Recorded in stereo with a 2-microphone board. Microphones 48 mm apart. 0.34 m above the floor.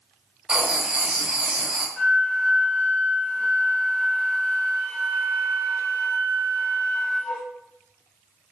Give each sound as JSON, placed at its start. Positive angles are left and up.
{"t": 0.5, "sound": "writing", "side_deg": -25, "distance_m": 0.8}
{"t": 2.0, "sound": "a flute", "side_deg": 35, "distance_m": 0.7}